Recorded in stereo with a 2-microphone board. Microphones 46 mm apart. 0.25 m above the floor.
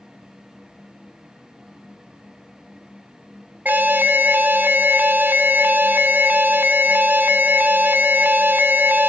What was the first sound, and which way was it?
An alarm, 40° right (ahead or behind).